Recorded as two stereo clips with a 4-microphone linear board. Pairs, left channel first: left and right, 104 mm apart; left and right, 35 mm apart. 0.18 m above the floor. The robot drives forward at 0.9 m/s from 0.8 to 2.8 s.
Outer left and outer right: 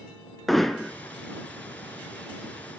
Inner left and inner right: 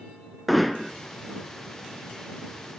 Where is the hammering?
5° left (ahead or behind), 0.8 m.